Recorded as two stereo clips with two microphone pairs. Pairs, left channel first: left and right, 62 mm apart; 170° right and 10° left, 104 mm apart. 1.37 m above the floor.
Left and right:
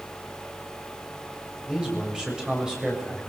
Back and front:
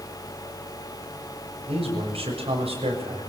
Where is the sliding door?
I don't hear a sliding door.